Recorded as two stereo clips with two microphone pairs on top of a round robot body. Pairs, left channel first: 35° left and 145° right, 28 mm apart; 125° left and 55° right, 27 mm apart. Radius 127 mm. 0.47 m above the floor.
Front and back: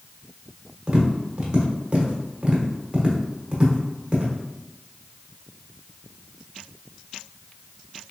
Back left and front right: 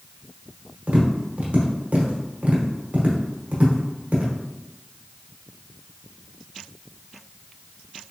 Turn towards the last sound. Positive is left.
turn(degrees=-90)